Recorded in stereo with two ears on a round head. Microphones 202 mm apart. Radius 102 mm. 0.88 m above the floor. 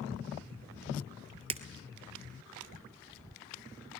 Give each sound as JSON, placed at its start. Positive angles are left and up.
{"t": 1.5, "sound": "breaking glass", "side_deg": -25, "distance_m": 0.9}